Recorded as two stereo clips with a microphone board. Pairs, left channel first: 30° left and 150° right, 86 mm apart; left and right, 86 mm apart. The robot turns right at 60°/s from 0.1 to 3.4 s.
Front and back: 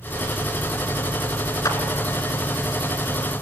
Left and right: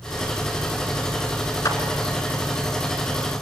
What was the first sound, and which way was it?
A clap, 55° left.